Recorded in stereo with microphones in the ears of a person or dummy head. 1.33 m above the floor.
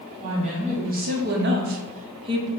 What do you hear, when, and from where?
0.2 s a woman speaking: 35° right (ahead or behind), 1.2 m; by 2.5 s 20° right (ahead or behind), 0.7 m